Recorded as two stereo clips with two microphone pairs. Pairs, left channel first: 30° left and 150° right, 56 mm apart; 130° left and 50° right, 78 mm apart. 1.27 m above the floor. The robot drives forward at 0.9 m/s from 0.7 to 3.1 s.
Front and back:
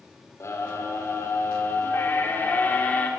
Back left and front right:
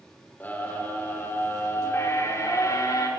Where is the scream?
60° left, 5 m; by 3.1 s 85° left, 4.5 m.